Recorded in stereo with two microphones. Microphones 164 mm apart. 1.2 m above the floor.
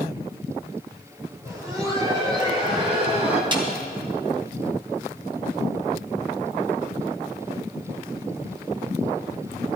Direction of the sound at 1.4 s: 20° right (ahead or behind).